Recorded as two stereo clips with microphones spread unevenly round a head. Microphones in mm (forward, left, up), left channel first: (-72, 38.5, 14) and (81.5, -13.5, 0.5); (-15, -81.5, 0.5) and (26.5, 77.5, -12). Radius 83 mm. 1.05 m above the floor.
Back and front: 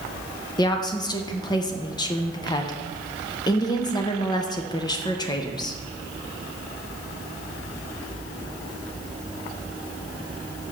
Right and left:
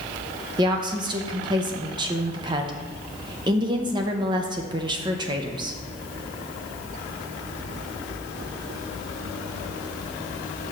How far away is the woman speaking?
About 0.6 m.